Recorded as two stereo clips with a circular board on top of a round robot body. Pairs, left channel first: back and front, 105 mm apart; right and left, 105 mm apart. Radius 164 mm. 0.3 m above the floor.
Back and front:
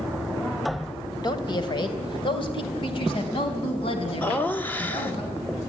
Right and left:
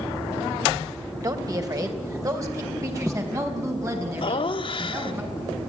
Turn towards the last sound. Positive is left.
turn(degrees=-110)